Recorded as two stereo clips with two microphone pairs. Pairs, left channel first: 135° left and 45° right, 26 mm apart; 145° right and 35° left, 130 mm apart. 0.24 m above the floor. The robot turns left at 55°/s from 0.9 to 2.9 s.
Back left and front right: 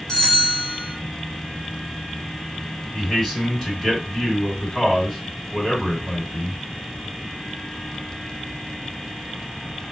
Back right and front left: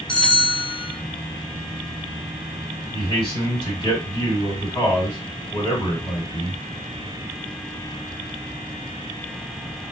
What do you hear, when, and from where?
0.1 s a bell: 140° left, 1.5 m
2.9 s a man speaking: 170° right, 2.0 m